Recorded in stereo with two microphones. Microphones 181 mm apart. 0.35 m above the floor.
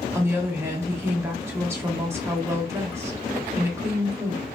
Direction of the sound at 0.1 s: 15° right (ahead or behind).